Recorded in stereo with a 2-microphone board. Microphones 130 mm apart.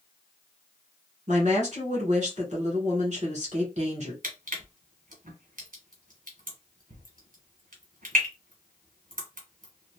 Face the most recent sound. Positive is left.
turn(degrees=-85)